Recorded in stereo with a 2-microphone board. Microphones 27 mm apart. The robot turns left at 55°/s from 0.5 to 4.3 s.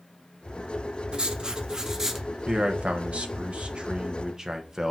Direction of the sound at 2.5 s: 45° right.